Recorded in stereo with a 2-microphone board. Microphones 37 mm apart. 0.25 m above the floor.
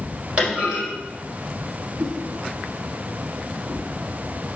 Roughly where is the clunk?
Right.